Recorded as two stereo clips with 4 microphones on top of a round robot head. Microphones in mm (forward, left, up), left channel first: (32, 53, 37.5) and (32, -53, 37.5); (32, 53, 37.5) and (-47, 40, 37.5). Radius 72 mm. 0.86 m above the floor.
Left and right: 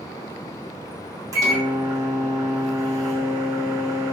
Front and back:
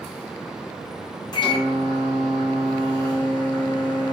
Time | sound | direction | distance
1.3 | a microwave | 30° right | 0.8 m